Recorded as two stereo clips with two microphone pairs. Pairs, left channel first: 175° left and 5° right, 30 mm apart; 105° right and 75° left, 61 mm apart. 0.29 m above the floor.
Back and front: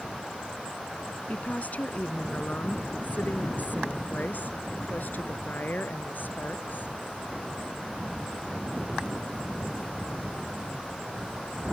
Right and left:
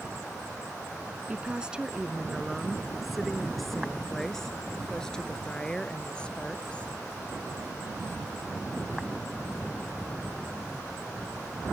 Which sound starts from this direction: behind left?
A woman speaking, at 1.3 s.